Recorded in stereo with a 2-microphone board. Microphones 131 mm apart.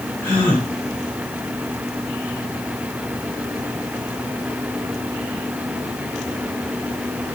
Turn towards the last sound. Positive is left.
turn(degrees=15)  # may be behind; listen again after turning